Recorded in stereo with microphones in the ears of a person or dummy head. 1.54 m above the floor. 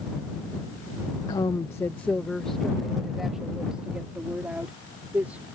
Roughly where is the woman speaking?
Centre.